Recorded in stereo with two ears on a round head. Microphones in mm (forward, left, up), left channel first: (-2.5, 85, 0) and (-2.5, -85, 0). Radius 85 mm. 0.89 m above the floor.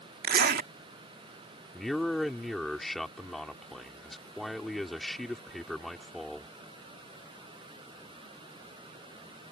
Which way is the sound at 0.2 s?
50° right (ahead or behind).